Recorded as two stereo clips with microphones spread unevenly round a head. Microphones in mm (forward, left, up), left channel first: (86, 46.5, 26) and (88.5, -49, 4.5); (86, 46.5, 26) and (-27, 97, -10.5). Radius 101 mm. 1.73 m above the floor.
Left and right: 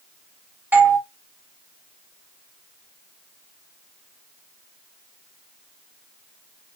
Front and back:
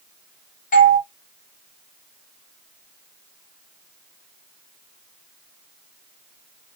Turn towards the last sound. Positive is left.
turn(degrees=-15)